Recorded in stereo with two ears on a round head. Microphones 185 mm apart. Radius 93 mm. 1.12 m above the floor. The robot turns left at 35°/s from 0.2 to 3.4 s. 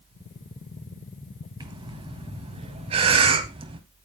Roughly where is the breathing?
Right.